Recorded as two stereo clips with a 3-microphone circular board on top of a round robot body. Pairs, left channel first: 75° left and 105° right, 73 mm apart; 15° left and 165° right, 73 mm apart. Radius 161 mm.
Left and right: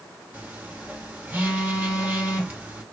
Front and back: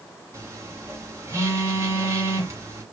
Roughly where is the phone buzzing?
Behind right.